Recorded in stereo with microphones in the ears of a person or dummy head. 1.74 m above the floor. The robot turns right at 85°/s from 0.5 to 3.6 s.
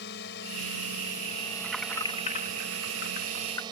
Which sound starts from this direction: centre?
Keys jangling, at 1.6 s.